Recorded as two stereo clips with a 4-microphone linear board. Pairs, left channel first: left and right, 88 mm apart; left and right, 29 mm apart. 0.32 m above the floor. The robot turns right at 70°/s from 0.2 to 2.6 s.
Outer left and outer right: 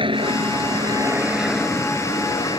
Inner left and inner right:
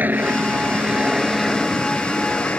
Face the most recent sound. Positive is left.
turn(degrees=75)